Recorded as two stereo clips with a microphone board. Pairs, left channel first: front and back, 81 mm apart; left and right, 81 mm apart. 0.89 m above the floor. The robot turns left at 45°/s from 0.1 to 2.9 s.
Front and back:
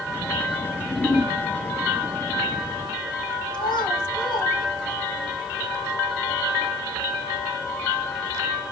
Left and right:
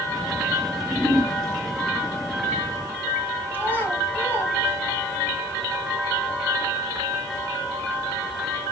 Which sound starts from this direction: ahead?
A whoosh, at 0.6 s.